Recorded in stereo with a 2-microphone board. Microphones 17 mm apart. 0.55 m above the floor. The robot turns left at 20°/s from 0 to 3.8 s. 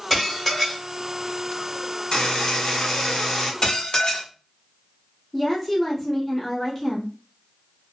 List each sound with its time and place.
0.1 s dishes clattering: 15° left (ahead or behind), 1.1 m; by 0.8 s centre (ahead or behind), 1.1 m
2.1 s a buzzer: 55° left (ahead or behind), 1.2 m; by 3.5 s 30° left (ahead or behind), 1.2 m
3.6 s dishes clattering: 50° left (ahead or behind), 0.8 m
5.3 s a woman speaking: 5° left (ahead or behind), 1.3 m